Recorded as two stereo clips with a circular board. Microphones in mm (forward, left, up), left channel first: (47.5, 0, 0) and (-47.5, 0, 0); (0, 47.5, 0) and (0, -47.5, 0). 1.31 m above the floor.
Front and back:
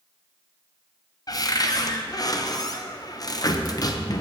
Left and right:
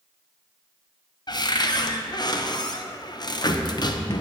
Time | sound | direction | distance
1.3 | a cupboard door | 50° left | 0.7 m